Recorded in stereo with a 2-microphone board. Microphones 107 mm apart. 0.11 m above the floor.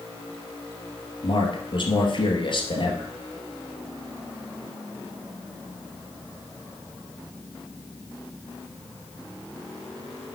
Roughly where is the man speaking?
Left.